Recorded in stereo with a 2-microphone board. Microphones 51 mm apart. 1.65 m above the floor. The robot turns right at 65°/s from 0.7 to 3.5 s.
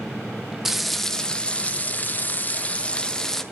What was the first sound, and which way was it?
Frying, 5° right.